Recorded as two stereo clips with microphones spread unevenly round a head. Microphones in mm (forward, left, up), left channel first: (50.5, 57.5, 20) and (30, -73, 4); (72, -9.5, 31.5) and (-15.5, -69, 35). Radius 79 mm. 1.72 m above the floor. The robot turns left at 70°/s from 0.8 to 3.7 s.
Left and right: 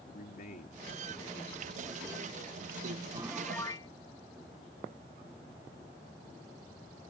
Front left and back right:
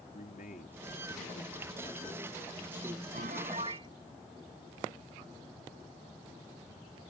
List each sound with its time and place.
0.1 s a man speaking: 60° left; by 3.0 s 95° right
3.1 s a piano: 170° right; by 3.9 s 150° left